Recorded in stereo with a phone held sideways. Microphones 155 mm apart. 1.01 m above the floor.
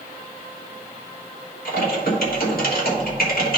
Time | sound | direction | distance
1.6 | typing on a keyboard | 75° left (ahead or behind) | 1.5 m